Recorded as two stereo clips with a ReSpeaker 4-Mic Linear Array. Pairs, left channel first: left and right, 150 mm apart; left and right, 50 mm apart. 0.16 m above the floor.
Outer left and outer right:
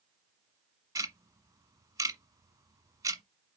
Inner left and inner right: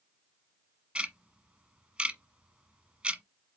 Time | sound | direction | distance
0.9 | ticking | 20° right (ahead or behind) | 1.1 m